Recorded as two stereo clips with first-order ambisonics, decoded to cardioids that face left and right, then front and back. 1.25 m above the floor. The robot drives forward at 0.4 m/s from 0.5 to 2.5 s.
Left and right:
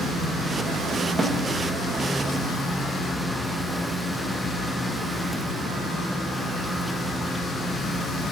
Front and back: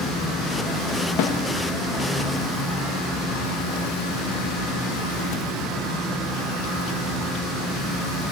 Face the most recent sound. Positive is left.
turn(degrees=-40)